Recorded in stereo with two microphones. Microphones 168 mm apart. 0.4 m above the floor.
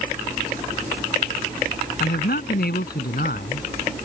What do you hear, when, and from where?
2.0 s a man speaking: 75° left (ahead or behind)